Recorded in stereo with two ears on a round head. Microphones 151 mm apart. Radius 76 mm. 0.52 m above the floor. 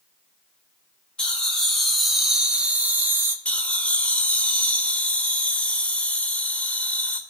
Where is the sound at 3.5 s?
10° left (ahead or behind), 2.0 m.